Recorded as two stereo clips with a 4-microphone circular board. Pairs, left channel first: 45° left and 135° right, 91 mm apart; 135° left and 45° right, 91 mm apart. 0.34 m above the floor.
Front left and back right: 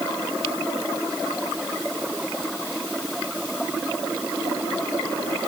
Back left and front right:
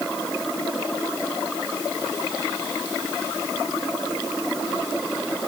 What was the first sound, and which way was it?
Only background noise.